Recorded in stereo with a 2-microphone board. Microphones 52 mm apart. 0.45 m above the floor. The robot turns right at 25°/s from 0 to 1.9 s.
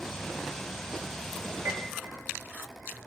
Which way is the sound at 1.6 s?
85° right.